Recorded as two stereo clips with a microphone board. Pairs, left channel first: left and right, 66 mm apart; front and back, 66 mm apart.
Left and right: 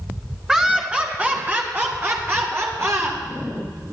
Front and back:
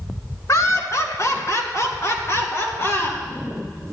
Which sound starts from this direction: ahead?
Laughter, at 0.5 s.